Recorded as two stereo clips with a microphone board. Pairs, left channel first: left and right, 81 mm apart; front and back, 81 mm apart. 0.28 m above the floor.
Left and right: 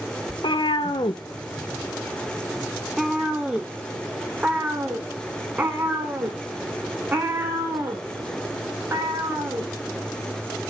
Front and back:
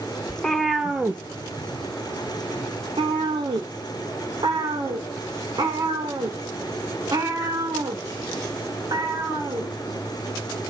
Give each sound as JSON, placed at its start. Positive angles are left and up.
{"t": 0.3, "sound": "a cat meowing", "azimuth_deg": 80, "distance_m": 0.8}